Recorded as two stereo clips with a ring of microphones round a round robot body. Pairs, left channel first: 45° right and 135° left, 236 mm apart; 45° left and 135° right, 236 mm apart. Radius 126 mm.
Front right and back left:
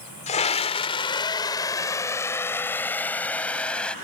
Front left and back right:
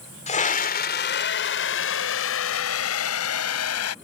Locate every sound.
0.3 s a scream: straight ahead; by 3.9 s 40° left